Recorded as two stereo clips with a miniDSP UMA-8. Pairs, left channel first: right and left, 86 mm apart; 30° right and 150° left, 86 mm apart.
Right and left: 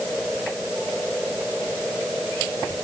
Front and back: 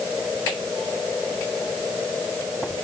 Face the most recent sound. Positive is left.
No sound to turn to.